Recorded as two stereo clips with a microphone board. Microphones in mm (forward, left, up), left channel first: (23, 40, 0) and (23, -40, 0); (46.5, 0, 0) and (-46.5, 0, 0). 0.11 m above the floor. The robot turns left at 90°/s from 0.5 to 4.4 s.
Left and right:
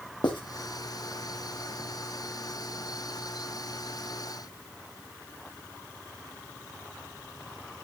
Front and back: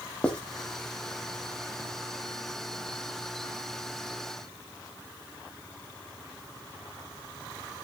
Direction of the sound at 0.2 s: 80° left.